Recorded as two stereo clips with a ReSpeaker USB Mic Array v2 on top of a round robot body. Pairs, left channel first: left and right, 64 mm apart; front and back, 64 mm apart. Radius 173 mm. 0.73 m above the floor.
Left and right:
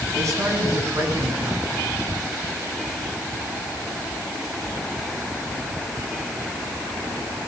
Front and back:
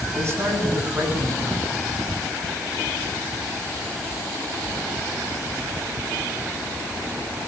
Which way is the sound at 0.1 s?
130° right.